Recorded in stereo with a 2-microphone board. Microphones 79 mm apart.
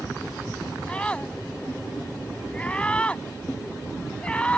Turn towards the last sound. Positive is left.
turn(degrees=15)  # may be behind; listen again after turning